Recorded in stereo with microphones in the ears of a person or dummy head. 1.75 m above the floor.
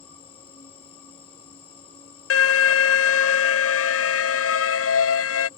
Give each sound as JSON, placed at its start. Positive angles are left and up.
{"t": 0.0, "sound": "an insect", "side_deg": 30}
{"t": 2.3, "sound": "an alarm", "side_deg": 65}